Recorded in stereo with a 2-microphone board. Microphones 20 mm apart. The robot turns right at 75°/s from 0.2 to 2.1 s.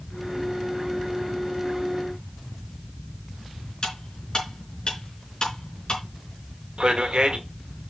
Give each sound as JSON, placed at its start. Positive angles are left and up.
{"t": 3.8, "sound": "cutlery clinking", "side_deg": 40, "distance_m": 4.0}
{"t": 6.8, "sound": "a man speaking", "side_deg": -50, "distance_m": 1.7}